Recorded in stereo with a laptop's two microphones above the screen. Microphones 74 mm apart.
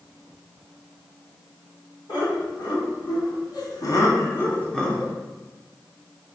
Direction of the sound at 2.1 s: 75° left (ahead or behind).